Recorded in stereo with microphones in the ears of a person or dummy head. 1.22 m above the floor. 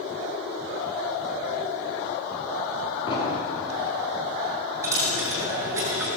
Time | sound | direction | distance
3.1 | an explosion | 25° left (ahead or behind) | 2.5 m
4.8 | a dropped coin | 15° right (ahead or behind) | 2.5 m